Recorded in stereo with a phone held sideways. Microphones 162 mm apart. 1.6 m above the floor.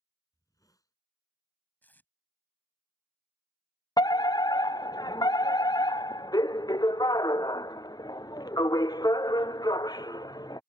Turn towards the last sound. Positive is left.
turn(degrees=25)  # may be behind; listen again after turning